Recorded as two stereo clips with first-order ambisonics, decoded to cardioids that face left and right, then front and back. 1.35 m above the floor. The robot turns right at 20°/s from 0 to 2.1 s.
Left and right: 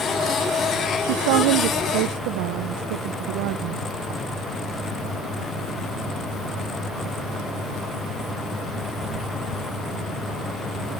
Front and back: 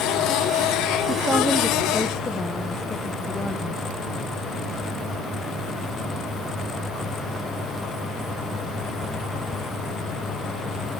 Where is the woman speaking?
100° right, 0.7 m; by 3.8 s 80° right, 0.7 m.